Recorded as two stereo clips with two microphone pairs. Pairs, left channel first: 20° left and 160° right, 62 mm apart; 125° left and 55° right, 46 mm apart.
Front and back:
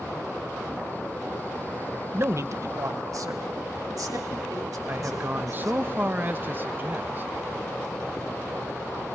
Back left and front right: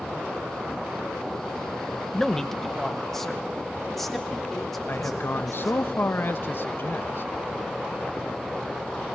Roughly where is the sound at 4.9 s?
Behind left.